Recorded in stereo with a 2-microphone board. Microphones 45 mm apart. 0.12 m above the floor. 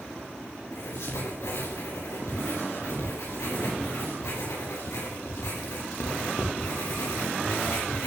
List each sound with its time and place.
0.7 s writing: 85° left, 6 m